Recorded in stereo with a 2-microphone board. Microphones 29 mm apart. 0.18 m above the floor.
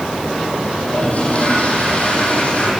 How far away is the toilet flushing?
About 8.5 m.